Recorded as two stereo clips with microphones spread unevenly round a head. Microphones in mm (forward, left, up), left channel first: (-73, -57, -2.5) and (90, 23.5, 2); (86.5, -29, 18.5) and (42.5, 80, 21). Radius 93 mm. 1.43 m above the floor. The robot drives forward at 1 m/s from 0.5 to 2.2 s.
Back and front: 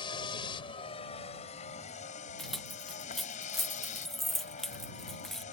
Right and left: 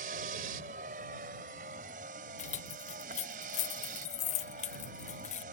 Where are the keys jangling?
65° right.